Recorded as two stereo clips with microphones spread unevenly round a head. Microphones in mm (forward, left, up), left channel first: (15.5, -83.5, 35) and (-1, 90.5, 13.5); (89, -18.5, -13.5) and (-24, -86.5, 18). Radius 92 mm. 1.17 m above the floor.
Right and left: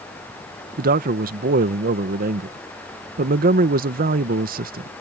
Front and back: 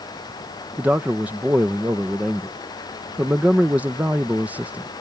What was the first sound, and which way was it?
A man speaking, 125° left.